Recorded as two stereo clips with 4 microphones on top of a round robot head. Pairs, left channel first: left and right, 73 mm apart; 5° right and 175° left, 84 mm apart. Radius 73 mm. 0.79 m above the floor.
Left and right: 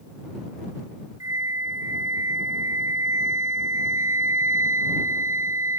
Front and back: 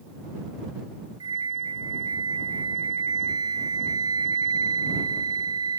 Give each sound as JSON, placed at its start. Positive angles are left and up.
{"t": 1.2, "sound": "a flute", "azimuth_deg": -135}